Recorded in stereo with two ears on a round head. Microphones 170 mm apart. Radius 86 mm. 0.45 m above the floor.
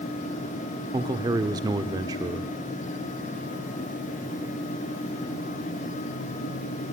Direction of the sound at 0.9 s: 20° right (ahead or behind).